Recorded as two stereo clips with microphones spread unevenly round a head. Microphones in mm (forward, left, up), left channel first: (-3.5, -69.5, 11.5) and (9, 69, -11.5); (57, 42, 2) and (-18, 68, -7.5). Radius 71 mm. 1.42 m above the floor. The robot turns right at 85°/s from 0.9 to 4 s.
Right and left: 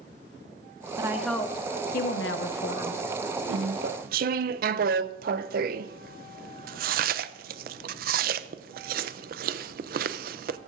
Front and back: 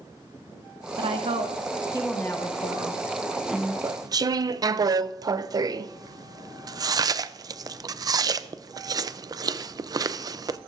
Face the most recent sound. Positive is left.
turn(degrees=115)